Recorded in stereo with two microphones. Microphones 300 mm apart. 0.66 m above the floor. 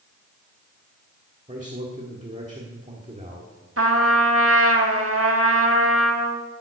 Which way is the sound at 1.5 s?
25° right (ahead or behind).